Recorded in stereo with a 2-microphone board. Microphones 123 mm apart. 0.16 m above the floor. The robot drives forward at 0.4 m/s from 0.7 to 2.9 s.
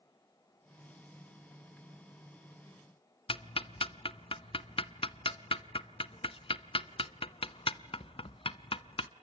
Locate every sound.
3.3 s ticking: 50° left (ahead or behind), 0.6 m